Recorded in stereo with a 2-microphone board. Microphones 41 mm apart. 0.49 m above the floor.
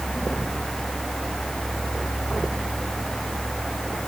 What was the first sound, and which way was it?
Only background noise.